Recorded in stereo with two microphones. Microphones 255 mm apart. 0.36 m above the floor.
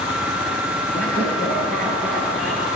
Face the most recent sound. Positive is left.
turn(degrees=55)  # may be behind; listen again after turning